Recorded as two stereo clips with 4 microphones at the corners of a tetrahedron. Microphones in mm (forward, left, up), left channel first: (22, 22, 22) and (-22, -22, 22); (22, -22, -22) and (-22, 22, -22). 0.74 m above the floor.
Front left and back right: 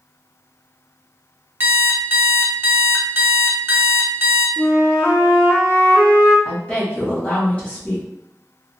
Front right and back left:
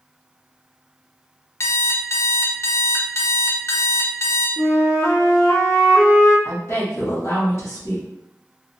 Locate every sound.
1.6 s an alarm clock: 80° right, 0.6 m
4.6 s a flute: 10° left, 1.0 m
6.5 s a woman speaking: 20° right, 1.4 m